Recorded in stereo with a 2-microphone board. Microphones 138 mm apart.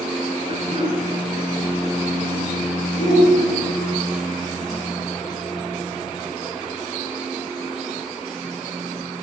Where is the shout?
60° left (ahead or behind), 3 m.